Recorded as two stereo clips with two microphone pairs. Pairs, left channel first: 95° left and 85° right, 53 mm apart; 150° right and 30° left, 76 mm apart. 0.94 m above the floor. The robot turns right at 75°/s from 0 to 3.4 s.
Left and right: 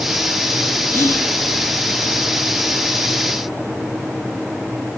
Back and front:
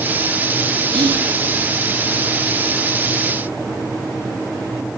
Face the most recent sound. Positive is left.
turn(degrees=-130)